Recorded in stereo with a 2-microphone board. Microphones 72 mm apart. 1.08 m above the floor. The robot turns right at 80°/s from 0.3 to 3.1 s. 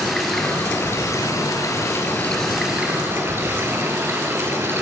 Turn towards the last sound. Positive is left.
turn(degrees=-135)